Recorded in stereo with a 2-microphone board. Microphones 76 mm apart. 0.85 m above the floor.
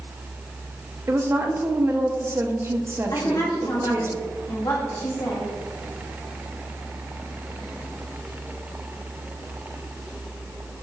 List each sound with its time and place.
1.1 s a woman speaking: 35° right (ahead or behind), 0.6 m
3.1 s a woman speaking: 55° left (ahead or behind), 1.6 m